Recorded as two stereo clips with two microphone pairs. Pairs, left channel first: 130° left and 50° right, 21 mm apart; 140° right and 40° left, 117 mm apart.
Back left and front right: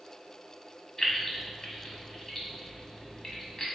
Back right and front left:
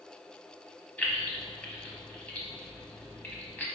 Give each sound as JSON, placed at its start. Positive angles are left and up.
{"t": 1.0, "sound": "keys jangling", "azimuth_deg": 155, "distance_m": 0.9}